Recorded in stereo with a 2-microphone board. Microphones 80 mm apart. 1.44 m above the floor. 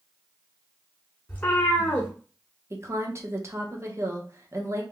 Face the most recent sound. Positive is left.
turn(degrees=-35)  # may be behind; listen again after turning